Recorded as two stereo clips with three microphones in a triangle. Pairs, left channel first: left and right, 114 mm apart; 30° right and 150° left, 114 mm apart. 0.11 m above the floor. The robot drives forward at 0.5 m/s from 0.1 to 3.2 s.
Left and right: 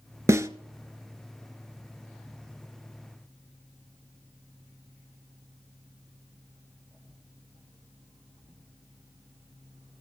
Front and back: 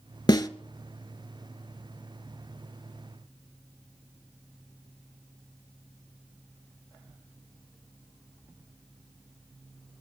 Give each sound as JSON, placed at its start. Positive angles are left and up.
{"t": 0.3, "sound": "a snare drum", "azimuth_deg": -40, "distance_m": 0.7}